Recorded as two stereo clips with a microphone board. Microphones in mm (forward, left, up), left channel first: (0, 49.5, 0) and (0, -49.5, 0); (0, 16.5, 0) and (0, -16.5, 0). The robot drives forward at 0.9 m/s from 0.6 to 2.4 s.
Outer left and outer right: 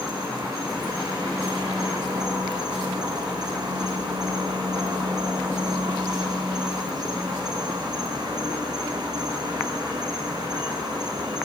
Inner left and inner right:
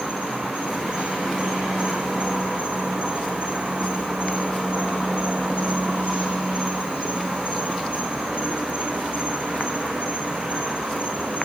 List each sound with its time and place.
0.0 s an insect: 35° right (ahead or behind), 5.5 m; by 11.4 s 45° right (ahead or behind), 4.5 m